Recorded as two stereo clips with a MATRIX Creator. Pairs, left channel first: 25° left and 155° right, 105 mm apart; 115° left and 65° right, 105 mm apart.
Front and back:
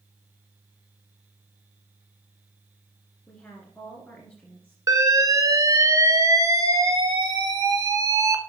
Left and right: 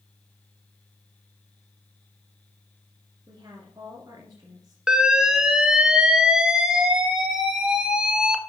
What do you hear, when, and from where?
3.3 s a woman speaking: 45° right, 1.7 m
4.9 s an alarm: 145° right, 0.9 m